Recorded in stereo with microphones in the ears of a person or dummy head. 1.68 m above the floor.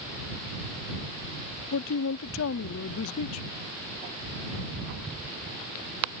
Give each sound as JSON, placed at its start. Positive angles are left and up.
{"t": 1.7, "sound": "a man speaking", "side_deg": 80}